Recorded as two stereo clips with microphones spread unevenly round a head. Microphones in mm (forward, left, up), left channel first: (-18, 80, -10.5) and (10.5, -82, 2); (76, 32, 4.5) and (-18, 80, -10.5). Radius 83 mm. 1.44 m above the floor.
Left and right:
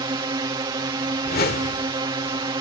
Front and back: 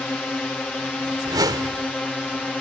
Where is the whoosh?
105° left.